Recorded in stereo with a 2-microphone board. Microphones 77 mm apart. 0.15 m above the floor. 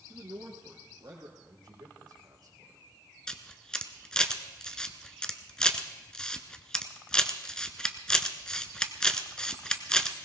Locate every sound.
0.1 s a man speaking: 60° right (ahead or behind), 2.5 m; by 1.3 s 70° right (ahead or behind), 4 m
1.4 s a man speaking: 60° right (ahead or behind), 7.5 m
3.3 s a camera shutter: 10° left (ahead or behind), 1.0 m